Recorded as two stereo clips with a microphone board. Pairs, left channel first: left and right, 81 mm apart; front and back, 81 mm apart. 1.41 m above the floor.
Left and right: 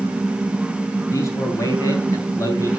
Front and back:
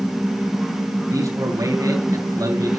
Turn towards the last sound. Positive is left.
turn(degrees=140)